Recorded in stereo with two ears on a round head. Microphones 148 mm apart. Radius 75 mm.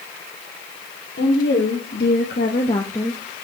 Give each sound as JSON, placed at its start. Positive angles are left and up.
{"t": 1.2, "sound": "a woman speaking", "side_deg": 75, "distance_m": 2.0}